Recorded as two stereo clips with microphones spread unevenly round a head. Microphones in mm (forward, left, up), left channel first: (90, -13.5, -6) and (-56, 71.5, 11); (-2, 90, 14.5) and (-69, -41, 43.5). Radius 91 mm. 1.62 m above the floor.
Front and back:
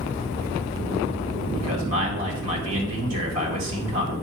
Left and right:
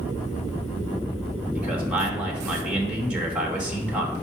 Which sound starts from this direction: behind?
A man speaking, at 1.6 s.